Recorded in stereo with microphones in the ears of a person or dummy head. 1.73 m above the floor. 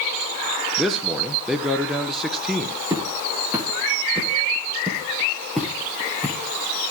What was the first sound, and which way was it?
A man speaking, centre (ahead or behind).